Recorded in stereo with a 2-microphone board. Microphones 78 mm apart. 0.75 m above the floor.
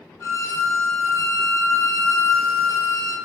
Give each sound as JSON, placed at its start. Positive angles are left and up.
{"t": 0.2, "sound": "a violin", "side_deg": 40, "distance_m": 1.5}